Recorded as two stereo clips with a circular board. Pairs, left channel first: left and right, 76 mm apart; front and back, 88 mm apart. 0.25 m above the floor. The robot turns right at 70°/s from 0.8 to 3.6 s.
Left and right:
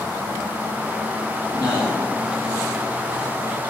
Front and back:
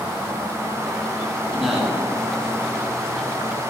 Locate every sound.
1.5 s a man speaking: 80° left, 1.1 m; by 2.0 s 115° left, 1.1 m